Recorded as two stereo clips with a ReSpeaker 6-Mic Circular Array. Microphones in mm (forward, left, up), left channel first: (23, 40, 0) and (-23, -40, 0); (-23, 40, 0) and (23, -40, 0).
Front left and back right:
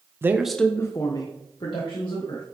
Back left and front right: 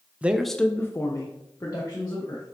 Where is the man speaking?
115° right, 0.5 m; by 2.4 s 75° left, 1.7 m.